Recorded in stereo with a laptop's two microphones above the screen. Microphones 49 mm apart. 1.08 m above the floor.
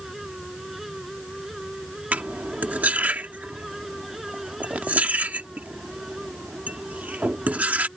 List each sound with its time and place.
0.0 s a fan: 5° right (ahead or behind)
2.1 s cutlery clinking: 30° right (ahead or behind)